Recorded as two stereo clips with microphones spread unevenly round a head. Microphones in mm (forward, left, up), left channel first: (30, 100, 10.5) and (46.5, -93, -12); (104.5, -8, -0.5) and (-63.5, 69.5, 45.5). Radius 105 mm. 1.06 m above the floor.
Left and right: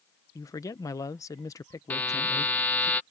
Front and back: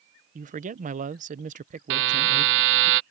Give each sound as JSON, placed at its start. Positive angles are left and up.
{"t": 0.3, "sound": "a man speaking", "azimuth_deg": 165}
{"t": 1.9, "sound": "a buzzer", "azimuth_deg": 180}